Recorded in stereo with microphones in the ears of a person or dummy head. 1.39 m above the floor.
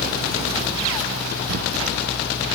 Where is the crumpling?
65° right (ahead or behind), 0.9 m.